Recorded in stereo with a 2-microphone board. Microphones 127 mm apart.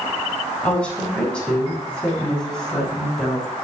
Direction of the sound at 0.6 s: 10° left (ahead or behind).